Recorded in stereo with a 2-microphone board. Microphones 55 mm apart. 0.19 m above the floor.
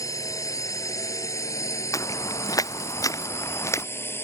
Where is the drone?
70° left (ahead or behind); by 4.2 s 40° left (ahead or behind).